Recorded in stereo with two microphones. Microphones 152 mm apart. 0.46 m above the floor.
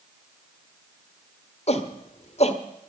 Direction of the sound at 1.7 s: 45° left (ahead or behind).